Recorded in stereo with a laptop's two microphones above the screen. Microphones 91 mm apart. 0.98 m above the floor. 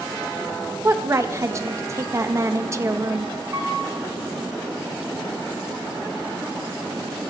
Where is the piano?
40° right (ahead or behind), 2.5 m.